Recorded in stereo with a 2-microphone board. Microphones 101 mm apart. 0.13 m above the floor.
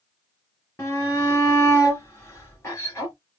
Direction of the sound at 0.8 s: 30° left (ahead or behind).